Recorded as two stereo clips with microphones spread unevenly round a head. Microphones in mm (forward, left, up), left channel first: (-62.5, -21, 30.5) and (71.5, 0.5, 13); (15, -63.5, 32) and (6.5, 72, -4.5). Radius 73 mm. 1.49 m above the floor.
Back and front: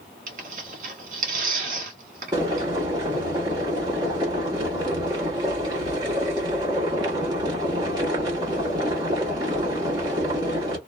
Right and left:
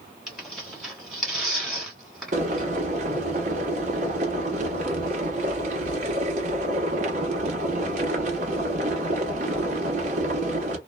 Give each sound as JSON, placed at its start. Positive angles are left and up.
{"t": 0.3, "sound": "tearing paper", "azimuth_deg": -10, "distance_m": 1.3}
{"t": 2.3, "sound": "boiling", "azimuth_deg": 70, "distance_m": 1.2}